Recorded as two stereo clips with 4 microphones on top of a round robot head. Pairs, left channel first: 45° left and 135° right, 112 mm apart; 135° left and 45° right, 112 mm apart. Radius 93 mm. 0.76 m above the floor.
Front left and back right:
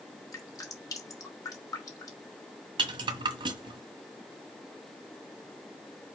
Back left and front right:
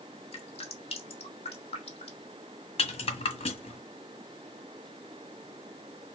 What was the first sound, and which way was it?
Dripping, 105° left.